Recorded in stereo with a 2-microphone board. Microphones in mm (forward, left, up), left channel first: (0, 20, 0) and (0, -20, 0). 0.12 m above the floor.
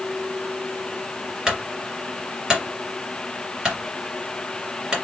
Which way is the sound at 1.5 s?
20° right (ahead or behind).